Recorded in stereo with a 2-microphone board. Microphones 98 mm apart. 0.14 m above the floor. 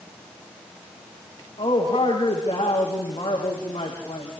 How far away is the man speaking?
About 7 m.